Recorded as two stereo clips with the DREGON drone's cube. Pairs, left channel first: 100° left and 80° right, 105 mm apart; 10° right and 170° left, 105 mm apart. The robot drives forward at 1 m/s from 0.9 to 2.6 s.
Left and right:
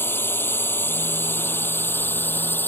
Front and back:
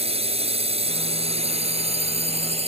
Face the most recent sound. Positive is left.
turn(degrees=170)